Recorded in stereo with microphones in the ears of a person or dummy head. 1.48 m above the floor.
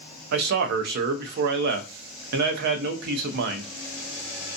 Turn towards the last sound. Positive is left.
turn(degrees=-65)  # may be behind; listen again after turning